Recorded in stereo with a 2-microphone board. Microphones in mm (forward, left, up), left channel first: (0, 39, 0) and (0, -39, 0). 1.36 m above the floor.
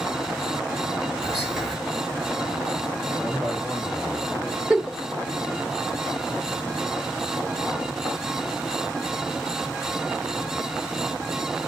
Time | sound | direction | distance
1.2 | whispering | 10° right (ahead or behind) | 2 m
3.2 | a man speaking | 10° right (ahead or behind) | 2.0 m
4.7 | a giggle | centre (ahead or behind) | 0.9 m